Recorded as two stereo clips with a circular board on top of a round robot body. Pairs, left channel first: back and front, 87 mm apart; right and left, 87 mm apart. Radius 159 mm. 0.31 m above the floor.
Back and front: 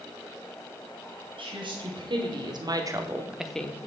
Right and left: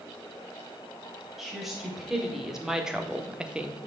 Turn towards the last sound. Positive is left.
turn(degrees=155)